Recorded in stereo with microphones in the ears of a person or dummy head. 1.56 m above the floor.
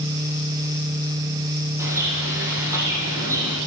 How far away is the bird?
About 8.5 m.